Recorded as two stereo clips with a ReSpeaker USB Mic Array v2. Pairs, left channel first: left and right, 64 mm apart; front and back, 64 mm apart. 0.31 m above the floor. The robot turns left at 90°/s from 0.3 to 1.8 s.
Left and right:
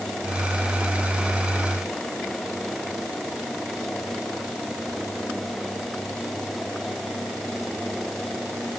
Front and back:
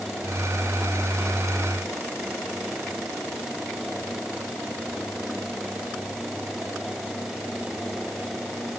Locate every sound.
Only background noise.